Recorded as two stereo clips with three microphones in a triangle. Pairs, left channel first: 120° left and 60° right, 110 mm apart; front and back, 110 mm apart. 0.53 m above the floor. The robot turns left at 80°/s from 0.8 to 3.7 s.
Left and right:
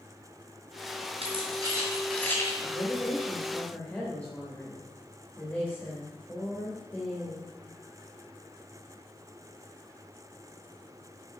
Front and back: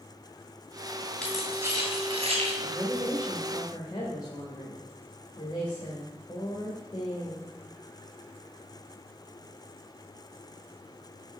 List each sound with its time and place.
1.2 s keys jangling: 80° right, 2.5 m; by 2.5 s 175° left, 2.5 m
2.6 s a woman speaking: 130° left, 1.5 m; by 7.5 s 45° left, 1.5 m